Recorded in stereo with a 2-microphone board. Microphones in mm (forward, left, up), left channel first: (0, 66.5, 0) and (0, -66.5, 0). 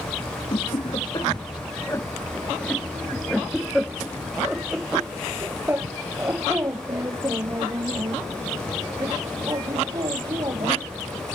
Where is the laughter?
45° left (ahead or behind); by 10.9 s 35° right (ahead or behind).